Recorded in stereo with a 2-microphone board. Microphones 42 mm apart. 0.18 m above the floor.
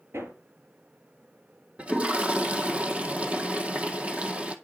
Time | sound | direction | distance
0.1 | hammering | 75° right (ahead or behind) | 4 m
1.8 | a toilet flushing | 30° right (ahead or behind) | 1.4 m